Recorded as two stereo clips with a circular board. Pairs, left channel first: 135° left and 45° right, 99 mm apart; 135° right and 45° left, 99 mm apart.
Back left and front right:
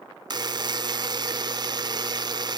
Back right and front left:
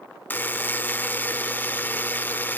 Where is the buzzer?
70° right, 0.6 m.